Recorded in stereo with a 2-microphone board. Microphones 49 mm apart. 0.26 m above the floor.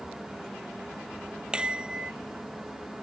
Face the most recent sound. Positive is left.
turn(degrees=-20)  # may be behind; listen again after turning